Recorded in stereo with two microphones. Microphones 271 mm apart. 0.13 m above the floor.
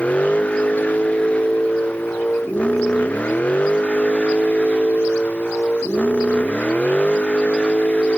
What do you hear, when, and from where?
0.0 s a vehicle: 5° left (ahead or behind)